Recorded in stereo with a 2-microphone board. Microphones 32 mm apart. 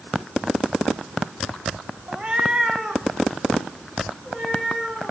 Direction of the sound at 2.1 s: 40° right (ahead or behind).